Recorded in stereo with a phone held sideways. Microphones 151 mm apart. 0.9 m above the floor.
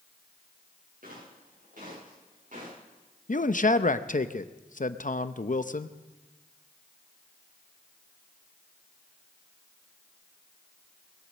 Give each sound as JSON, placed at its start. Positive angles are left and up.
{"t": 1.0, "sound": "footsteps", "side_deg": -70, "distance_m": 8.5}
{"t": 3.3, "sound": "a man speaking", "side_deg": 60, "distance_m": 0.6}